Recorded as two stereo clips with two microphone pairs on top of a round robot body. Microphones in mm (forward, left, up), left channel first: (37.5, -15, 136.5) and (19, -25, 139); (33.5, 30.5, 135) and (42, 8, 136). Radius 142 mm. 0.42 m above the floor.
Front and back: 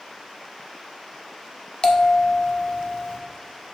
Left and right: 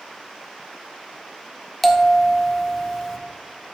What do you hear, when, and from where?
1.8 s a bell: 30° left, 1.4 m